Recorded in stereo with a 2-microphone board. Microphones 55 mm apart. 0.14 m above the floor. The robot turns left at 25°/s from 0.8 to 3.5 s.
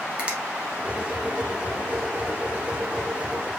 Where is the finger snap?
25° right (ahead or behind), 1.1 m.